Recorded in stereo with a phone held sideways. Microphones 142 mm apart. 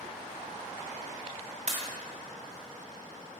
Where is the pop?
55° right (ahead or behind), 1.1 m.